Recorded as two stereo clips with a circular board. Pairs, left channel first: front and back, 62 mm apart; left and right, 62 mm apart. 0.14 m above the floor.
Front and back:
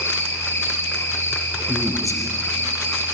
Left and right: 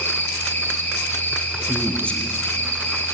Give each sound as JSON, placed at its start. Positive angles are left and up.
{"t": 0.0, "sound": "an insect", "azimuth_deg": 40, "distance_m": 4.0}
{"t": 1.7, "sound": "a man speaking", "azimuth_deg": 160, "distance_m": 4.0}